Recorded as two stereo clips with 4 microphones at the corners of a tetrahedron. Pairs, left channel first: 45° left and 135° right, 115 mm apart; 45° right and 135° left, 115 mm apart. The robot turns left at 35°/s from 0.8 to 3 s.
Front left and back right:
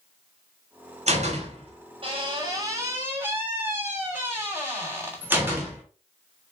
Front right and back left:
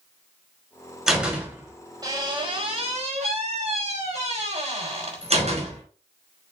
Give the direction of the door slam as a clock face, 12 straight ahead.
5 o'clock.